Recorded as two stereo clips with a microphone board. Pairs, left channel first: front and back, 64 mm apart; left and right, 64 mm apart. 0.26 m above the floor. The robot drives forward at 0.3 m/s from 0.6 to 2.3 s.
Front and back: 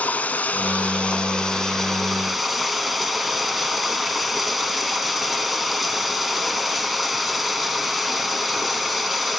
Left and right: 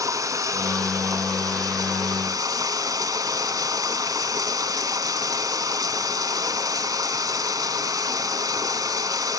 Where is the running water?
65° right, 1.2 m; by 9.4 s 95° right, 1.1 m.